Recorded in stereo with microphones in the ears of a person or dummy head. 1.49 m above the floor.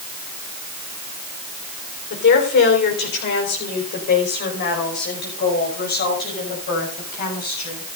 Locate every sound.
2.1 s a woman speaking: 60° left (ahead or behind), 4 m; by 7.8 s 50° left (ahead or behind), 8 m